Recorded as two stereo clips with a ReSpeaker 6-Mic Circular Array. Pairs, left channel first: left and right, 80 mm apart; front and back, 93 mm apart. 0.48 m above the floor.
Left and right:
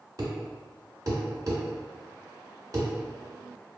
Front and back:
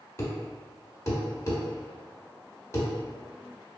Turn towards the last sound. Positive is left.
turn(degrees=-55)